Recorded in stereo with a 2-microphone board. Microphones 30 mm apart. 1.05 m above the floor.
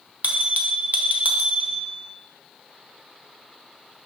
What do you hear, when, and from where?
0.2 s a bell: 55° right (ahead or behind), 0.8 m